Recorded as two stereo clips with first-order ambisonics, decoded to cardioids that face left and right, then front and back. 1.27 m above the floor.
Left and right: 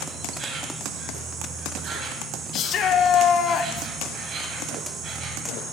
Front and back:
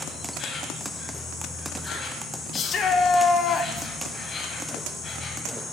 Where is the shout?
50° left, 0.8 m.